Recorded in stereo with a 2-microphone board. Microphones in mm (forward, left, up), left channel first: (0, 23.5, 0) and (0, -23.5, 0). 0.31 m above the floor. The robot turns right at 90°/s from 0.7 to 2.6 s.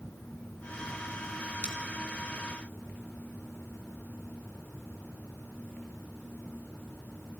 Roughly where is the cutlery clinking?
Right.